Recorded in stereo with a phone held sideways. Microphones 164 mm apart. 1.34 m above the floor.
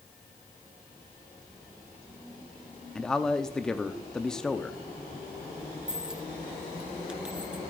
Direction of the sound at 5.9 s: 5° right (ahead or behind).